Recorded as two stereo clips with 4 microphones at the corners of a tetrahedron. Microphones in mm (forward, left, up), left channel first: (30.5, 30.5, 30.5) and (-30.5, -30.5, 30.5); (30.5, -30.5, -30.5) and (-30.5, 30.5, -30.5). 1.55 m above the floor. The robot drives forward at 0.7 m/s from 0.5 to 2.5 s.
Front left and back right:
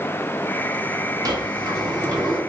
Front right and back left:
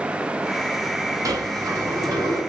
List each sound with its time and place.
1.2 s a sliding door: 175° right, 0.7 m; by 2.4 s straight behind, 1.5 m